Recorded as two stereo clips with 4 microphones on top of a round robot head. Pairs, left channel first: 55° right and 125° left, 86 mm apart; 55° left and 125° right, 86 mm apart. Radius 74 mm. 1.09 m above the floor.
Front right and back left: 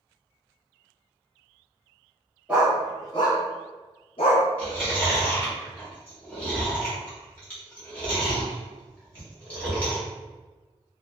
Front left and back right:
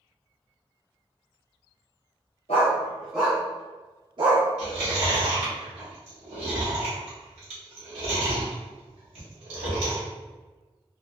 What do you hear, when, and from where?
2.5 s a dog barking: 45° left, 0.6 m; by 4.5 s 90° right, 1.1 m
4.6 s chewing: 135° right, 1.1 m